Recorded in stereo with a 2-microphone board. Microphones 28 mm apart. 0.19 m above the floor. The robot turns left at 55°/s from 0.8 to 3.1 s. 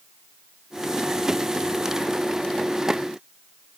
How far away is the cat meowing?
No cat meowing in this recording.